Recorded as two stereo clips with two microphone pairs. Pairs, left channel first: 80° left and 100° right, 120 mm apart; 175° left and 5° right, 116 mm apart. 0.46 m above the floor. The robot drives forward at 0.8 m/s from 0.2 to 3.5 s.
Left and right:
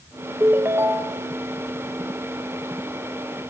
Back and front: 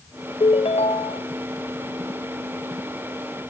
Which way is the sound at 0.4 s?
165° right.